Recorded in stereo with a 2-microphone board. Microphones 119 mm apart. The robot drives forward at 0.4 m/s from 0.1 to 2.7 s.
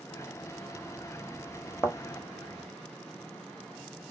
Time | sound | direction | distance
1.8 | a thud | 20° left (ahead or behind) | 0.6 m